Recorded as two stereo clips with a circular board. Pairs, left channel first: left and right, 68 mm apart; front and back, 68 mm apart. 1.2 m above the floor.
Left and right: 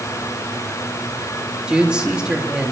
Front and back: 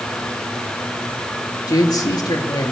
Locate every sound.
1.7 s a man speaking: 15° right, 3 m